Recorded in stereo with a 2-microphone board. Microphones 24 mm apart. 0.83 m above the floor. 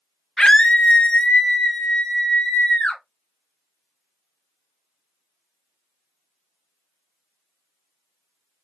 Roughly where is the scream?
Left.